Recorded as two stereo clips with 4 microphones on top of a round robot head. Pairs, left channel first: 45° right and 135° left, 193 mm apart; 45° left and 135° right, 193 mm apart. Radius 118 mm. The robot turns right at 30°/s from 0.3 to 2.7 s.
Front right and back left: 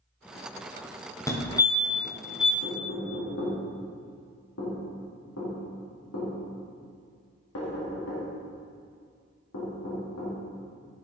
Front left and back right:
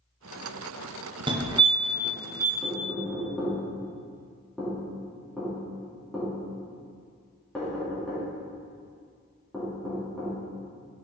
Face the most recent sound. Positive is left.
turn(degrees=-45)